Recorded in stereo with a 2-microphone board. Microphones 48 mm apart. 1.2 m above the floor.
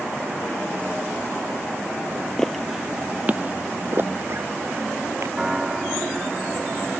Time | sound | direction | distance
2.4 | footsteps | 10° left (ahead or behind) | ?
5.4 | a piano | 15° right (ahead or behind) | ?